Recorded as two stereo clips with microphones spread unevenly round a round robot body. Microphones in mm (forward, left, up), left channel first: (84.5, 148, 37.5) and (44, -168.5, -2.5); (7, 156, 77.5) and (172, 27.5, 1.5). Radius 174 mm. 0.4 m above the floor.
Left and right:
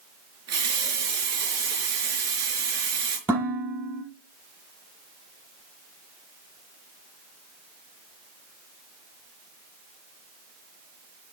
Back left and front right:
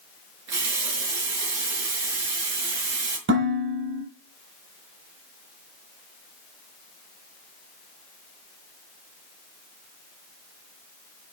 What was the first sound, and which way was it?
A running tap, 55° right.